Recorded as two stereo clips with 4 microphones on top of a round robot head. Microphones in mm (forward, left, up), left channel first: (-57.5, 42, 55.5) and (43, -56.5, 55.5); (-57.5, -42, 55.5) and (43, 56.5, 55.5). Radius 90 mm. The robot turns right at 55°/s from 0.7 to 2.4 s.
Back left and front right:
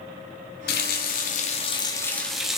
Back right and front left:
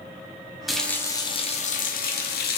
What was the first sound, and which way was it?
A running tap, 135° left.